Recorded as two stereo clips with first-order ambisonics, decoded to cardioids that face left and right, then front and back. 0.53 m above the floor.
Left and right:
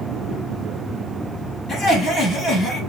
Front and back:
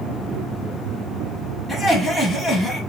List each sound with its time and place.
1.7 s laughter: 80° left, 1.1 m